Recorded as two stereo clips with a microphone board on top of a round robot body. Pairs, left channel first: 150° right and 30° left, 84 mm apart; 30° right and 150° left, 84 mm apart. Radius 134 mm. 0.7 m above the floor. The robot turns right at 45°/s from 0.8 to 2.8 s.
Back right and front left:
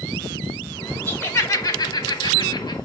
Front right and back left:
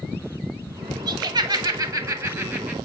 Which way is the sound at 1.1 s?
145° left.